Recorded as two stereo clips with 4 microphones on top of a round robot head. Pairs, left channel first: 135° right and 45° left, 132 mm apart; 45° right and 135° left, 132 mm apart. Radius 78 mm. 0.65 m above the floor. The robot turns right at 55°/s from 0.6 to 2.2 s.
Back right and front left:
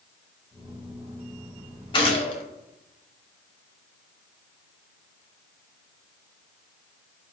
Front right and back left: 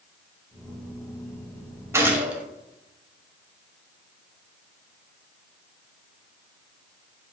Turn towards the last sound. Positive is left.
turn(degrees=-150)